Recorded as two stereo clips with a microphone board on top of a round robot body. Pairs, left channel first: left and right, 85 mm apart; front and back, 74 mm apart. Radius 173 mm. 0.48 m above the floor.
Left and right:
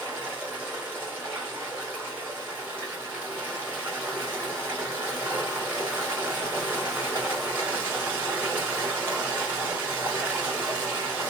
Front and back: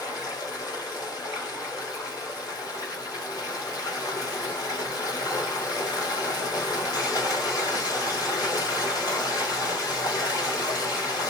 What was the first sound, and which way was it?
Running water, 30° right.